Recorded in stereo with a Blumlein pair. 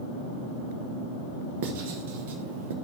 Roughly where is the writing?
Ahead right.